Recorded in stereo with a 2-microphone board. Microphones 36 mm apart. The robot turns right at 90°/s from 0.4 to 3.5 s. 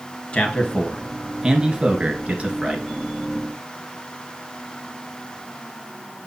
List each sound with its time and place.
0.3 s a man speaking: 30° left (ahead or behind), 1.4 m; by 2.8 s 15° right (ahead or behind), 1.4 m